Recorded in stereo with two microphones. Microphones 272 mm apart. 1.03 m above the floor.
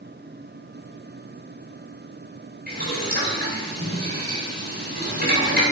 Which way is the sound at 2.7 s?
30° right (ahead or behind).